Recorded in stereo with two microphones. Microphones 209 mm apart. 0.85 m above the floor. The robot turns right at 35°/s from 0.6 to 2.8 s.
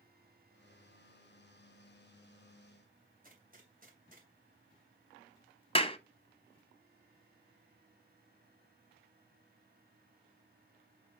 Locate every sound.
3.2 s a gunshot: 40° right (ahead or behind), 2.5 m
5.8 s a clap: 25° left (ahead or behind), 0.8 m